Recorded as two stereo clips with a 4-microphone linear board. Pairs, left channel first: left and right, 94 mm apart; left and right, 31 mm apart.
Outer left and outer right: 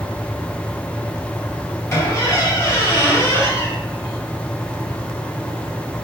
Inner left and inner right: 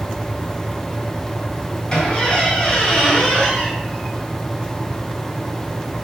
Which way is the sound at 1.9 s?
30° left (ahead or behind).